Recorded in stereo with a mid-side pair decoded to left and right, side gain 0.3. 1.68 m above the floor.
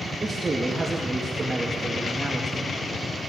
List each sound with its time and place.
0.2 s a man speaking: 35° right, 2.5 m